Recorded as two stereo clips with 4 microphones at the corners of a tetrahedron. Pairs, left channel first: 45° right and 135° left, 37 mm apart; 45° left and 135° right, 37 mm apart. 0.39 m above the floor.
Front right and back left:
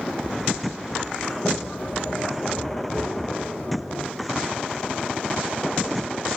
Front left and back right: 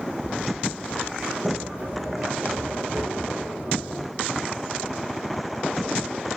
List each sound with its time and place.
1.2 s a sliding door: 85° right, 4 m